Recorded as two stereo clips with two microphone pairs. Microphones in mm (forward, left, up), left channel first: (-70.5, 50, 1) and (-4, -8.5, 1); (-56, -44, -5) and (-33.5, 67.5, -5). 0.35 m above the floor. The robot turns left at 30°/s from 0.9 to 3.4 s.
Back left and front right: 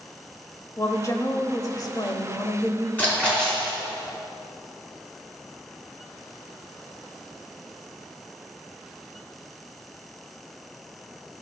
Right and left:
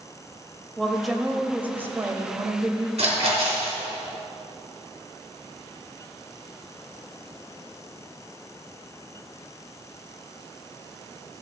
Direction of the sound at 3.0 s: 70° left.